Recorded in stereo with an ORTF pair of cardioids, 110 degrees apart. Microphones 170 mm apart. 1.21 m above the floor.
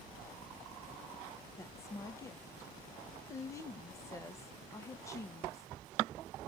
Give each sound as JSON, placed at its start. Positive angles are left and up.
{"t": 1.6, "sound": "a woman speaking", "azimuth_deg": 15, "distance_m": 0.6}